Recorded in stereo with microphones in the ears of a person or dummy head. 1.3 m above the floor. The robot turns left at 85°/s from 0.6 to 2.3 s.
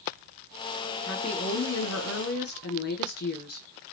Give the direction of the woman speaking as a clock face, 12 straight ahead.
6 o'clock.